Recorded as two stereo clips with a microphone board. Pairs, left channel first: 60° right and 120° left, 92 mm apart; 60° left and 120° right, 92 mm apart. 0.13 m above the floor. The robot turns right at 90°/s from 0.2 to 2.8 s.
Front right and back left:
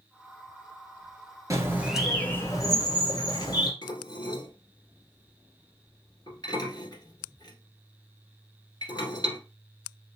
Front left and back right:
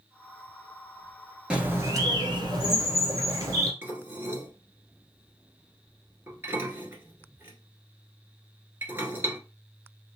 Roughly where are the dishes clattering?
Ahead right.